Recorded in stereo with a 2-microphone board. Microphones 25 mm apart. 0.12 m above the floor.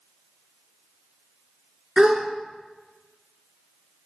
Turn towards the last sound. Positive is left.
turn(degrees=-35)  # may be behind; listen again after turning